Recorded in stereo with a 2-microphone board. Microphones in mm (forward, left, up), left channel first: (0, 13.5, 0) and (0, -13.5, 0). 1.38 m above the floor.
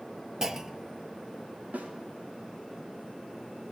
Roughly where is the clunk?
Centre.